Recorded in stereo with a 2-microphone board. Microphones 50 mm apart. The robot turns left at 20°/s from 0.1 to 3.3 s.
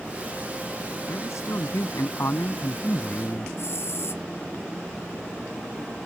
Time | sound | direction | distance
1.1 | a man speaking | 90° left | ?
3.6 | a hiss | 60° left (ahead or behind) | ?